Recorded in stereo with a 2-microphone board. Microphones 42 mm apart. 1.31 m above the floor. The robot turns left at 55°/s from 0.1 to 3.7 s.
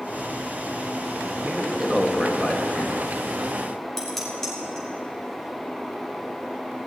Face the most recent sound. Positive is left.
turn(degrees=10)  # may be behind; listen again after turning